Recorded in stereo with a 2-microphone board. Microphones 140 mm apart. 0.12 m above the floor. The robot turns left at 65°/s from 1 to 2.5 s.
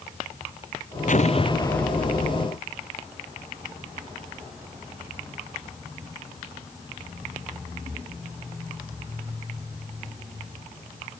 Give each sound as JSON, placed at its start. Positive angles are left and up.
{"t": 1.1, "sound": "an explosion", "azimuth_deg": 60}